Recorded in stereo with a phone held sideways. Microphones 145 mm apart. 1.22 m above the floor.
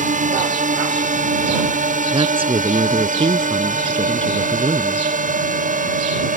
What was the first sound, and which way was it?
A drone, 70° right (ahead or behind).